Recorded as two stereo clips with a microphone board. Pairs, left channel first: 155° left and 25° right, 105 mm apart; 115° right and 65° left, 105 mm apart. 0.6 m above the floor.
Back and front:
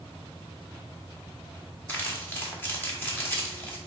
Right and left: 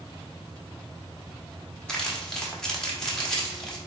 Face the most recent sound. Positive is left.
turn(degrees=175)